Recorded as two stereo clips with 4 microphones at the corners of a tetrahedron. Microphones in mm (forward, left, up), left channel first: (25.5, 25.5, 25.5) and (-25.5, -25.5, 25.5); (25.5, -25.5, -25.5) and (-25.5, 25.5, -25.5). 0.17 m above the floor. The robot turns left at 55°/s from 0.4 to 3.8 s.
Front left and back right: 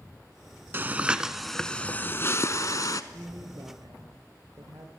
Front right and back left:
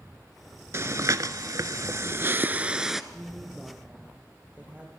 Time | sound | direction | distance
0.7 | breathing | 170° left | 0.8 m
3.1 | a woman speaking | 120° right | 3.5 m